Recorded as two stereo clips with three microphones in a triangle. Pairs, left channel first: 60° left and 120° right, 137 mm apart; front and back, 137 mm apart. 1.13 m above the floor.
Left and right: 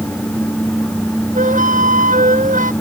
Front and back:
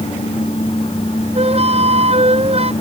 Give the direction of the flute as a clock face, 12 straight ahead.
5 o'clock.